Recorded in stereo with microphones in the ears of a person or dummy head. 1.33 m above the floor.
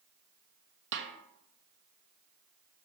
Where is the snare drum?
65° right (ahead or behind), 0.9 m.